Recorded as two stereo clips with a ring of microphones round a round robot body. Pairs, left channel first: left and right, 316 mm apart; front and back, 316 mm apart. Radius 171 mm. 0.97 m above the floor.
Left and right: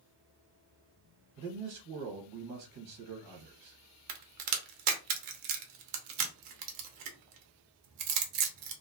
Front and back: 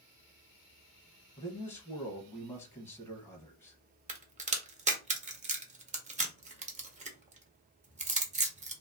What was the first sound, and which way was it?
A man speaking, 80° right.